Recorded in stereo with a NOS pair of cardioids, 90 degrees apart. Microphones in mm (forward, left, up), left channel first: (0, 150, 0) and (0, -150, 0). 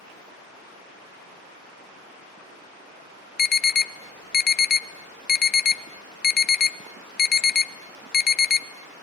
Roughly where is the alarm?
Ahead left.